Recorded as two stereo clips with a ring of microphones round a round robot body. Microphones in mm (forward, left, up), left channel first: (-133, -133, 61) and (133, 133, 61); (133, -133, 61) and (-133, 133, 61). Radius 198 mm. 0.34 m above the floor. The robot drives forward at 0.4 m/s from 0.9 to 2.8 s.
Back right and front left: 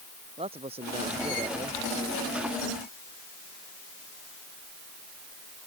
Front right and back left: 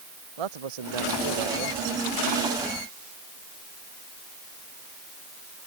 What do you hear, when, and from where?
0.4 s a man speaking: 120° left